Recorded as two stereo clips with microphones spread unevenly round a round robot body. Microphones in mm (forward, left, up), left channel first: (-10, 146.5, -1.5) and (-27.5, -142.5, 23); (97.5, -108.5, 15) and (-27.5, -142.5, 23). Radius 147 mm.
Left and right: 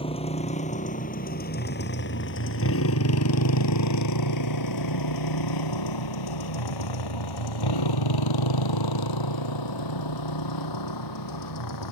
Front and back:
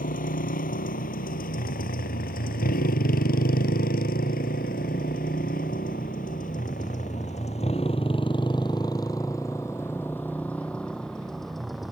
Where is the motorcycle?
15° left; by 11.9 s 105° left.